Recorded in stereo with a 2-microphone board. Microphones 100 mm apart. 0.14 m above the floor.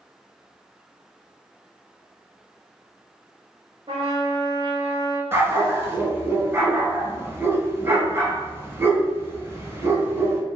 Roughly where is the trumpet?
Right.